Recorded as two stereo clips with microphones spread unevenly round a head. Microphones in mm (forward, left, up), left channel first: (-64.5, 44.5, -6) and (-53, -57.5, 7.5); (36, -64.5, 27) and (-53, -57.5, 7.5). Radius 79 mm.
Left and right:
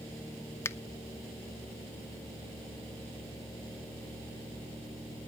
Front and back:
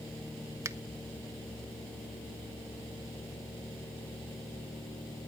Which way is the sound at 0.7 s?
145° left.